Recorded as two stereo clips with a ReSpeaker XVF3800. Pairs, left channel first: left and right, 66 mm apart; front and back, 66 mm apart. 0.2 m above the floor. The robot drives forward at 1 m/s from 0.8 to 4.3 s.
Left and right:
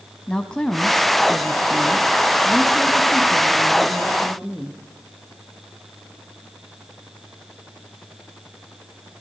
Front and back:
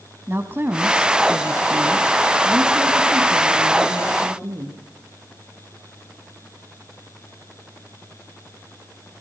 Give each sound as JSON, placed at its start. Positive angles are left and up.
{"t": 0.3, "sound": "a woman speaking", "azimuth_deg": 160, "distance_m": 1.2}